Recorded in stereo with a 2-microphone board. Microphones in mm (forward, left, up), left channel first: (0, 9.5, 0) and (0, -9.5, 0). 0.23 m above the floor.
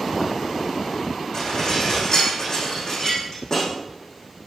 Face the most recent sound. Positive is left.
turn(degrees=45)  # may be behind; listen again after turning